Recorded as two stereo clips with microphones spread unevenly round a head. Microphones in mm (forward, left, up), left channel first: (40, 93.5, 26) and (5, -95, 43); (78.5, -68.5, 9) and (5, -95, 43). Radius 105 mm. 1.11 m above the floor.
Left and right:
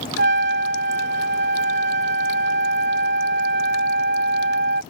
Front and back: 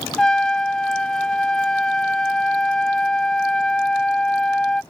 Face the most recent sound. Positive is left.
turn(degrees=-65)